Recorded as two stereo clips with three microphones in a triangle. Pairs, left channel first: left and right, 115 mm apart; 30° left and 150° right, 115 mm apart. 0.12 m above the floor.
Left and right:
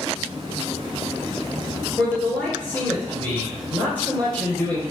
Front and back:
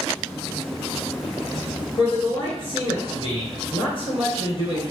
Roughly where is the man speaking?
Ahead.